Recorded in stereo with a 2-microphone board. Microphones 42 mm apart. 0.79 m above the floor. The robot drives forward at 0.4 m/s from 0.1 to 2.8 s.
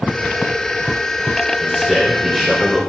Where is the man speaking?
10° right (ahead or behind), 4 m.